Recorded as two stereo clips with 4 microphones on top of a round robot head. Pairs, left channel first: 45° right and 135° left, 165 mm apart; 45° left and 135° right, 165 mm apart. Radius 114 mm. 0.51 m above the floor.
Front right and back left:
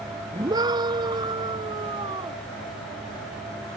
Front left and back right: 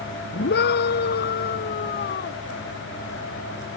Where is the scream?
65° left; by 2.4 s 75° left.